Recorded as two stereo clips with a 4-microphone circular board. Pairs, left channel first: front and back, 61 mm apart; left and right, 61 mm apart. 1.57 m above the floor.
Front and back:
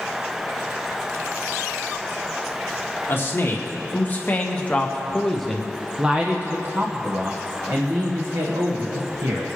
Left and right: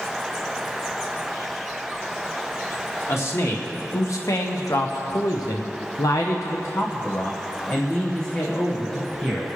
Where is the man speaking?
50° left, 2 m; by 9.5 s 170° left, 2 m.